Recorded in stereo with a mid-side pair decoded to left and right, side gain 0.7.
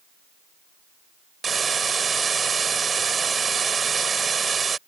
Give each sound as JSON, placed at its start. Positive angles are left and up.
{"t": 1.4, "sound": "a hiss", "azimuth_deg": -25}